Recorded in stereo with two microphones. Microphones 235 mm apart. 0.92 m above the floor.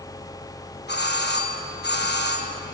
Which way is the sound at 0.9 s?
45° left (ahead or behind).